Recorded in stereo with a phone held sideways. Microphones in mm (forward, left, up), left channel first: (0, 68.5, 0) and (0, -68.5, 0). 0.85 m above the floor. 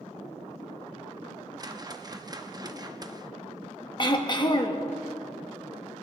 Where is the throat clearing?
35° left (ahead or behind), 1.1 m.